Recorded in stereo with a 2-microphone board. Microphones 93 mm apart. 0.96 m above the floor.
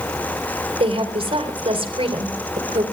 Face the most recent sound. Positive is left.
turn(degrees=-75)  # may be behind; listen again after turning